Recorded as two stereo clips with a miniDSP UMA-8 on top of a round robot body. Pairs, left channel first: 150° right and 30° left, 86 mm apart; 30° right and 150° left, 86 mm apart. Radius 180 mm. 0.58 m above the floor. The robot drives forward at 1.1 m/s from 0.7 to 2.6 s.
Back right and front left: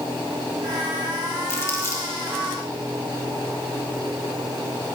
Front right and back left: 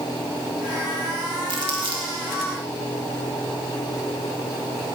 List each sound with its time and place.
1.5 s crumpling: 150° left, 2 m; by 2.1 s 155° left, 3 m